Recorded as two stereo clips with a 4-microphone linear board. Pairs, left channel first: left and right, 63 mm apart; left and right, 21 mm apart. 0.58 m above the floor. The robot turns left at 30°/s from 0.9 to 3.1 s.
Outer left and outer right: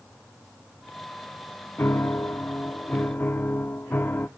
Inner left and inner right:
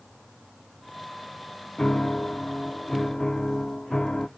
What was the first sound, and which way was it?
A piano, 95° left.